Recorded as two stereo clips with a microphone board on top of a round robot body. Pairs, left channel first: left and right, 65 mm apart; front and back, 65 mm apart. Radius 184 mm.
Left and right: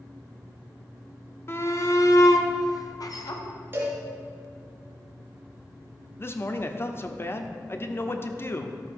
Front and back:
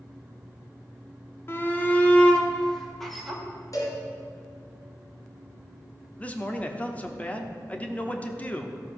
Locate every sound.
1.5 s a shout: 45° left, 1.7 m; by 3.4 s 90° left, 2.5 m
3.7 s a cowbell: 30° right, 2.5 m
6.2 s a man speaking: 60° left, 1.3 m